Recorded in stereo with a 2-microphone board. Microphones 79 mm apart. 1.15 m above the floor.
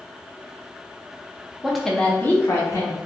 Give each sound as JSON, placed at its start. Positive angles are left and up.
{"t": 1.6, "sound": "a woman speaking", "side_deg": -10, "distance_m": 0.8}